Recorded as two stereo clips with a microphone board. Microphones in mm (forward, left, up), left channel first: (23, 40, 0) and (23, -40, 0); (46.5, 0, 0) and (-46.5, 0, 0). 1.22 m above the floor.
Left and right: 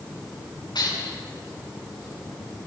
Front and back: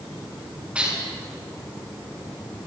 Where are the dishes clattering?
105° left, 8 m.